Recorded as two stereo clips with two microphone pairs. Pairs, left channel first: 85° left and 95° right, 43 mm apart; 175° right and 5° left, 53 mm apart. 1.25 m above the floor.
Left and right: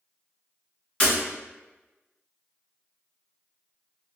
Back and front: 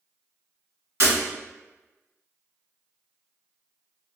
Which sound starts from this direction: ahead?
Breaking glass, at 1.0 s.